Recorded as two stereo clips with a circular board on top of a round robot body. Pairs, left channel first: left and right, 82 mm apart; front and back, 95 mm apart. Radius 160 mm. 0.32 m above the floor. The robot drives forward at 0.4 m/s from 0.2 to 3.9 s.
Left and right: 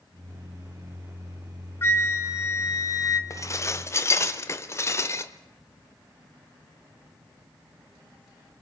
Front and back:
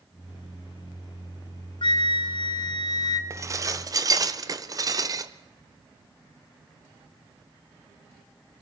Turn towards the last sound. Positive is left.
turn(degrees=140)